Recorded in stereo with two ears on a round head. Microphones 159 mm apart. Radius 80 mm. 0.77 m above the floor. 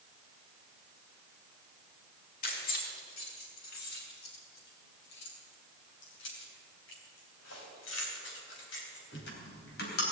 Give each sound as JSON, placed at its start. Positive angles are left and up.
{"t": 2.4, "sound": "keys jangling", "side_deg": 55, "distance_m": 4.5}